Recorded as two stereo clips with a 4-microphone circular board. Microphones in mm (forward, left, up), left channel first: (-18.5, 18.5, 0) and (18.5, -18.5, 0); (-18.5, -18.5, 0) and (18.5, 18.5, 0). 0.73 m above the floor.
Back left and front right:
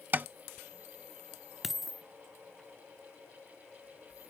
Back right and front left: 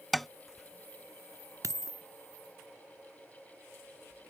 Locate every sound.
0.1 s tapping: 45° right
1.6 s a dropped coin: 40° left